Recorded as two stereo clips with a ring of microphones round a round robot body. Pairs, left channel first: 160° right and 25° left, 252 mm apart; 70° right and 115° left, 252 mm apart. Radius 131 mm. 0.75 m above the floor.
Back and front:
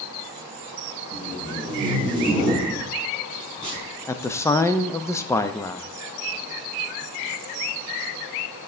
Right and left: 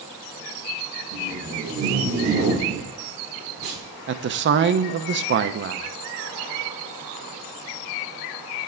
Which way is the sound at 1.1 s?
95° left.